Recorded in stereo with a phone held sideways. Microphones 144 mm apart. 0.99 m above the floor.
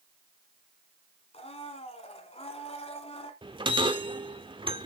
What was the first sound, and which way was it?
A blender, 45° left (ahead or behind).